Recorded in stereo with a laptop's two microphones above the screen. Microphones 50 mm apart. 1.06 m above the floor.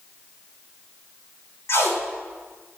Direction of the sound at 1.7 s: 60° left (ahead or behind).